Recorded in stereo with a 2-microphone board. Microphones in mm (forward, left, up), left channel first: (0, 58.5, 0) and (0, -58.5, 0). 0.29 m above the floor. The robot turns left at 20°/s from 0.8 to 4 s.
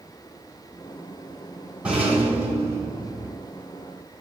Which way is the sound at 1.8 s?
10° right (ahead or behind).